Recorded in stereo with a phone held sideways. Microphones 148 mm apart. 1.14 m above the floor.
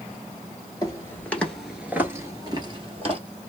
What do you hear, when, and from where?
0.8 s footsteps: 25° left (ahead or behind), 1.2 m; by 3.2 s 45° right (ahead or behind), 1.5 m